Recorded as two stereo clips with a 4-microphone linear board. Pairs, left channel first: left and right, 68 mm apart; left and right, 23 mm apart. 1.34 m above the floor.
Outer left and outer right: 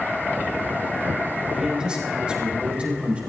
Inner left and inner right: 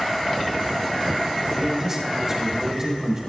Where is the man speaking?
10° right (ahead or behind), 5 m; by 3.2 s 20° right (ahead or behind), 4.5 m.